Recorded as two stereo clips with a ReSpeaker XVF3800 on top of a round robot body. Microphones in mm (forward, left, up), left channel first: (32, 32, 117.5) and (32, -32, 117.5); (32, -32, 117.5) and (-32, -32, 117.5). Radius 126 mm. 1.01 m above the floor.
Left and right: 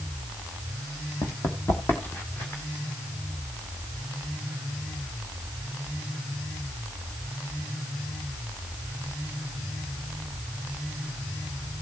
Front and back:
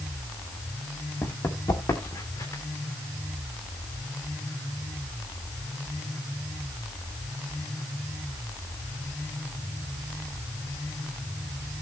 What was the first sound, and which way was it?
Running footsteps, 50° left.